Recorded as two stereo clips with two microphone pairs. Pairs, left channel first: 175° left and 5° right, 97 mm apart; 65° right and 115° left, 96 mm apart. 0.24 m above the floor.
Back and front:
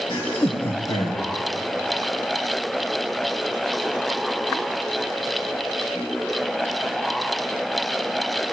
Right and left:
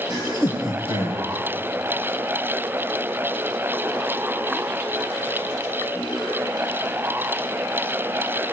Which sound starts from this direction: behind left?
Laughter, at 0.1 s.